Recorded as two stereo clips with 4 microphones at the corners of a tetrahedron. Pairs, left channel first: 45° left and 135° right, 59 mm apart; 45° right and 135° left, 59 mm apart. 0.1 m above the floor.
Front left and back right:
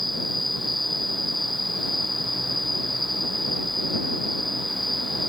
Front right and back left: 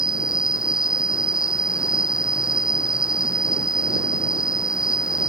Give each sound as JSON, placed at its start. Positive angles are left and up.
{"t": 0.0, "sound": "an insect", "azimuth_deg": -45}